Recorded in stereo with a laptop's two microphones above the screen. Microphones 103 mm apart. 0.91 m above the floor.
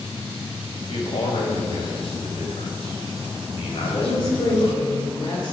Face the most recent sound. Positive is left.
turn(degrees=60)  # may be behind; listen again after turning